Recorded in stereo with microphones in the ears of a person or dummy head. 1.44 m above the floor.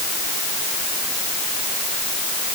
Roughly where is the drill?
I don't hear a drill.